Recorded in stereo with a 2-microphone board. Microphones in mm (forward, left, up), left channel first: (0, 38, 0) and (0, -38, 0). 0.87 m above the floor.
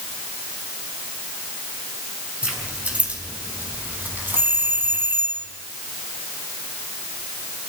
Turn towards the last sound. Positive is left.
turn(degrees=-35)  # may be behind; listen again after turning